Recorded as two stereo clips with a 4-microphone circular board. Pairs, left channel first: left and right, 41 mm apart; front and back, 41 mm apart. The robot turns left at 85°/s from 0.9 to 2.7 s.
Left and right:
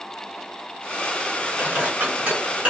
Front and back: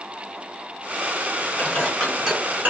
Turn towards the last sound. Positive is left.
turn(degrees=-150)